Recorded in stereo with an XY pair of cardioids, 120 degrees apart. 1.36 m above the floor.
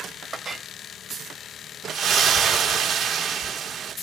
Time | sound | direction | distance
0.3 | a clink | 30° right | 0.9 m
1.9 | a splash | 55° right | 1.0 m